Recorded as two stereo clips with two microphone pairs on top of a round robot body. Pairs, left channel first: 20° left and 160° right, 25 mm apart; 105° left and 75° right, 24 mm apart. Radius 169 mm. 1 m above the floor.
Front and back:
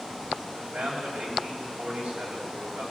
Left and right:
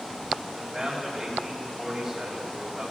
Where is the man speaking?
155° right, 6 m.